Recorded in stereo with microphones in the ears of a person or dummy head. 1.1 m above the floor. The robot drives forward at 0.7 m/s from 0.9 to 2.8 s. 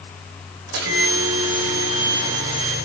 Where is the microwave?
70° right (ahead or behind), 3.5 m; by 2.8 s 50° right (ahead or behind), 4 m.